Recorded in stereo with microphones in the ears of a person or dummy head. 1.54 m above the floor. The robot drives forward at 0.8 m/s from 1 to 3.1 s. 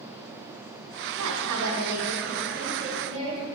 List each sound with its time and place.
1.2 s a woman speaking: 85° right, 1.4 m; by 3.5 s 40° right (ahead or behind), 2 m